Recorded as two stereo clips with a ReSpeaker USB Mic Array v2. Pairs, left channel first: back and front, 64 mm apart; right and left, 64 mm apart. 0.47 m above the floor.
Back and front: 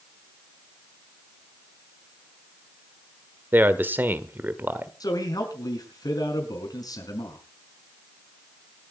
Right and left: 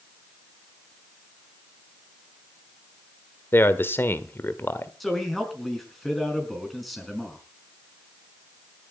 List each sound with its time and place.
3.5 s a man speaking: 50° right, 1.3 m
5.0 s a man speaking: straight behind, 5 m